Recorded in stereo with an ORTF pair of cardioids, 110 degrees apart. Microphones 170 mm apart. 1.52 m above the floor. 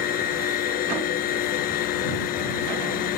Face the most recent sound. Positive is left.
turn(degrees=65)